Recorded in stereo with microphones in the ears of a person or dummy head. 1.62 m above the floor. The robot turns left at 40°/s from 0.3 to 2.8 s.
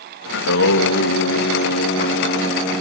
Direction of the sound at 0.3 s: 110° left.